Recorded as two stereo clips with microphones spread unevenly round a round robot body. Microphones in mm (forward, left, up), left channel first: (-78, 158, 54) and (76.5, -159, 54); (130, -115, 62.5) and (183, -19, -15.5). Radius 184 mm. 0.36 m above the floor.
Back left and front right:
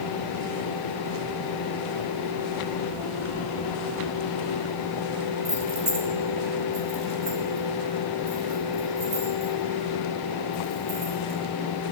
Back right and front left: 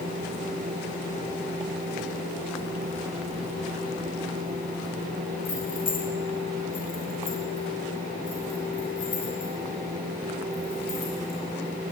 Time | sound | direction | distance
5.5 | keys jangling | 145° right | 1.2 m